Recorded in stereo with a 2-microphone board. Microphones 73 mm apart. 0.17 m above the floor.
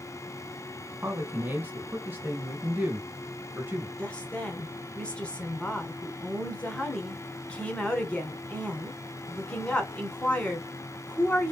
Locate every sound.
1.0 s a man speaking: 25° right (ahead or behind), 1.6 m
4.0 s a woman speaking: 15° left (ahead or behind), 1.3 m